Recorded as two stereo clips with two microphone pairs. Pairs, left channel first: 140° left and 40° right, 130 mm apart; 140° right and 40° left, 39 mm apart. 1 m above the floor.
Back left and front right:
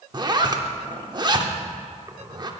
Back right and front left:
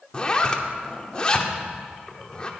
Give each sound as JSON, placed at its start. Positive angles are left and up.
{"t": 0.1, "sound": "a zipper", "azimuth_deg": -80, "distance_m": 0.7}